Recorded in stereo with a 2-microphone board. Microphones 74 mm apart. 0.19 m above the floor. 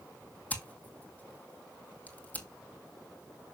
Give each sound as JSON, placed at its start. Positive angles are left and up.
{"t": 0.5, "sound": "scissors", "side_deg": 20, "distance_m": 1.8}